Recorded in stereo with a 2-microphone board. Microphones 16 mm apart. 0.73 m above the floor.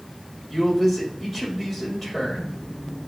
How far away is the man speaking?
About 4 m.